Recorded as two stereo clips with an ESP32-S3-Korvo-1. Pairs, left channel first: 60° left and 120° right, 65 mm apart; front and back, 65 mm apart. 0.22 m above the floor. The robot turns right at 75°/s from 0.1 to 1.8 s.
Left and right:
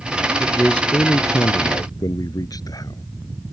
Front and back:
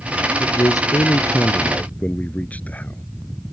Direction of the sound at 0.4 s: 40° right.